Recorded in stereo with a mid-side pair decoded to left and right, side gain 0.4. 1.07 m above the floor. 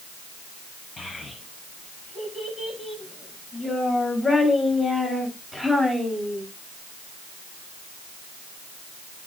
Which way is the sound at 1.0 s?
50° left.